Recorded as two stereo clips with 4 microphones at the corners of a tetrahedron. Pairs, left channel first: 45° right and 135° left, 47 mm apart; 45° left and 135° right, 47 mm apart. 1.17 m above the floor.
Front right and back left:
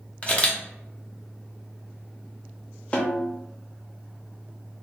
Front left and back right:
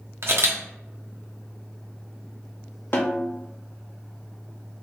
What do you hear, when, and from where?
0.2 s a camera shutter: 110° right, 0.7 m
2.9 s a snare drum: 10° left, 0.6 m